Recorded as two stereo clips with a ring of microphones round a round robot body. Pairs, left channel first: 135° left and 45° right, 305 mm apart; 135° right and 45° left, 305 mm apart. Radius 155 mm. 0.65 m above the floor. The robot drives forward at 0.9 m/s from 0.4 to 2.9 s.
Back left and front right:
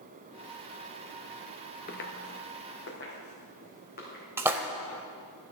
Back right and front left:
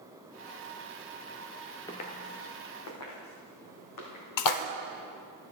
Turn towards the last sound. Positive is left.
turn(degrees=-125)